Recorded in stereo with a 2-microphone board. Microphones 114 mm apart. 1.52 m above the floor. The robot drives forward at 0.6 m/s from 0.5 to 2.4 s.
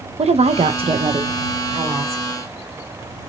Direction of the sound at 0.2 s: 65° right (ahead or behind).